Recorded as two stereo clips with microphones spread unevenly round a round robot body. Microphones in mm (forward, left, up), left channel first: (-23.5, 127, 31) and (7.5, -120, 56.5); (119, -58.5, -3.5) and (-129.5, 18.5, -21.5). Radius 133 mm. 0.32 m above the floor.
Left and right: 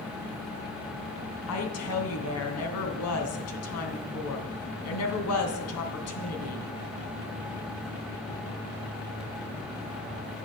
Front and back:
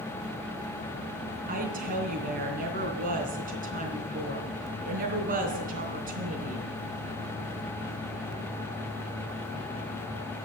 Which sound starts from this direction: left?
A woman speaking, at 1.5 s.